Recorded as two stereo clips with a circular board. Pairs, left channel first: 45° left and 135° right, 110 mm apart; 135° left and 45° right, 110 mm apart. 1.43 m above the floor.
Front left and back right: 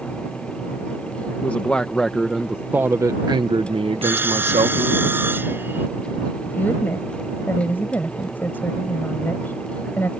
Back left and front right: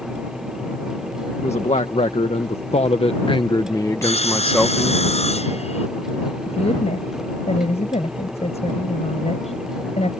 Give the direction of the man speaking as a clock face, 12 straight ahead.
8 o'clock.